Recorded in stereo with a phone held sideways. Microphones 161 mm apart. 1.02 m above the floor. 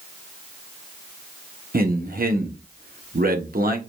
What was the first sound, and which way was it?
A man speaking, 65° right (ahead or behind).